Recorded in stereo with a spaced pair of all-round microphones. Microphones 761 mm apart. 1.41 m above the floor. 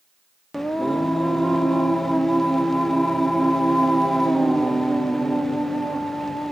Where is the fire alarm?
I don't hear a fire alarm.